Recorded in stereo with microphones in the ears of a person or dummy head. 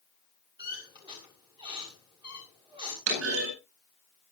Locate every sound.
0.6 s a squeak: 30° right (ahead or behind), 6.5 m
3.1 s a clunk: 70° right (ahead or behind), 9.5 m